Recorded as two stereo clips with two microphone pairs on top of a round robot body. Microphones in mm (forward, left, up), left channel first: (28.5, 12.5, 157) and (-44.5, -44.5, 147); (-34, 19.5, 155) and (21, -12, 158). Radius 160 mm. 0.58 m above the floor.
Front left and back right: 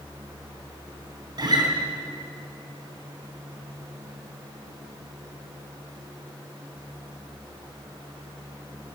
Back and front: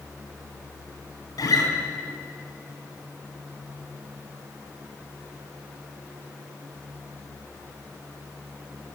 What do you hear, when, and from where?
1.4 s a guitar: 175° left, 3.5 m